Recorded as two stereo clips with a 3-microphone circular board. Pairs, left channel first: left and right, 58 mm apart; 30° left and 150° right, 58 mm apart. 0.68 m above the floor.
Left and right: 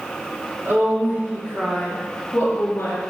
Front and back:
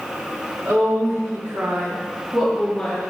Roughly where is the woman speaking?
Behind right.